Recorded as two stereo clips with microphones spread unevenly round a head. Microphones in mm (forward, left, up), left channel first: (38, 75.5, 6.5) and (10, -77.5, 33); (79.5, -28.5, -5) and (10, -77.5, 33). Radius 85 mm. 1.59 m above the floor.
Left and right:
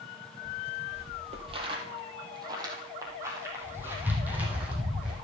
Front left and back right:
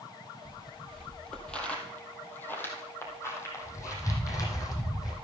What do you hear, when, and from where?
0.5 s footsteps: 80° right, 2.5 m; by 5.1 s 20° right, 3.5 m